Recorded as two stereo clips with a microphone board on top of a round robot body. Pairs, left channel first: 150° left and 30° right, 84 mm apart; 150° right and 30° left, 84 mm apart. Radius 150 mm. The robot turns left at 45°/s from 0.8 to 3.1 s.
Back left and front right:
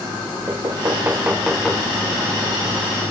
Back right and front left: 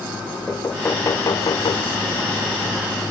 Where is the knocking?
85° right, 1.6 m; by 3.1 s 170° left, 1.6 m.